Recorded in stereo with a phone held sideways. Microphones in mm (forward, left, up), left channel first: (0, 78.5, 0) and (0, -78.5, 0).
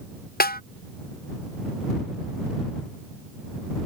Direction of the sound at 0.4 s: 75° left (ahead or behind).